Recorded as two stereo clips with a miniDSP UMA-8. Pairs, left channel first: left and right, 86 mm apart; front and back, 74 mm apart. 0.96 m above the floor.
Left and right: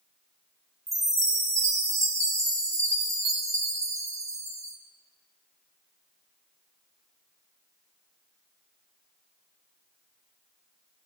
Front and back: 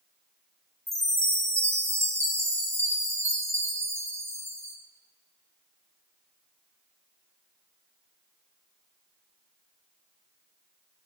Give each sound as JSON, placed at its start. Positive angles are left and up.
{"t": 0.9, "sound": "a chime", "azimuth_deg": -135, "distance_m": 1.1}